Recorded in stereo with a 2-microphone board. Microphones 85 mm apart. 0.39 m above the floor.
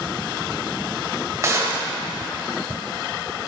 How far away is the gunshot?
About 1.0 m.